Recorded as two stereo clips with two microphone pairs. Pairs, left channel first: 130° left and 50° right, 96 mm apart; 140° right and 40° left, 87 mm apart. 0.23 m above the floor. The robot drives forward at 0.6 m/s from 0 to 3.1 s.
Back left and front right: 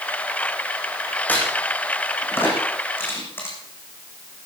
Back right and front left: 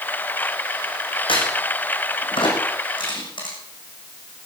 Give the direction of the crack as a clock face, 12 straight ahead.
5 o'clock.